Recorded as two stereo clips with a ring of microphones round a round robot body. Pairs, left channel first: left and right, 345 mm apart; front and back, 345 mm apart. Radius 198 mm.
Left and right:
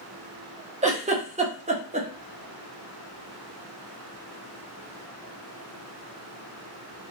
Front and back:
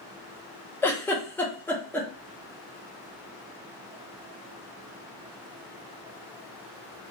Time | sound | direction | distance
0.8 | a giggle | 75° right | 0.8 m